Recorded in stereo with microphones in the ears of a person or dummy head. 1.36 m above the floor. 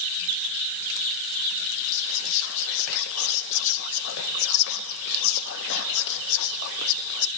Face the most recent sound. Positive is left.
turn(degrees=70)  # may be behind; listen again after turning